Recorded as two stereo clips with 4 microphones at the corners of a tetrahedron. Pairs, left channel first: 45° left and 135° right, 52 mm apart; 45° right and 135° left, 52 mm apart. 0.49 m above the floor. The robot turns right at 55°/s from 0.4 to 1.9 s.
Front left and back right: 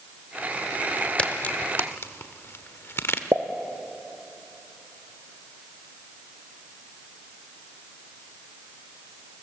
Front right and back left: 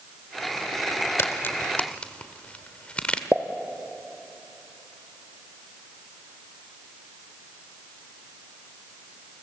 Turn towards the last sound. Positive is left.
turn(degrees=-160)